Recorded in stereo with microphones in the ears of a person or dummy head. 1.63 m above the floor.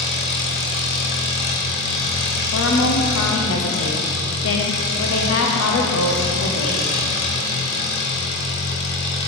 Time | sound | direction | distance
0.0 | an engine running | 55° left (ahead or behind) | 1.5 m
2.5 | a woman speaking | 70° left (ahead or behind) | 1.0 m